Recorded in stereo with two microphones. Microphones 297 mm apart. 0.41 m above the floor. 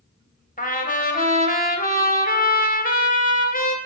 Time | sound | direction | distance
0.6 | a trumpet | 30° left (ahead or behind) | 1.5 m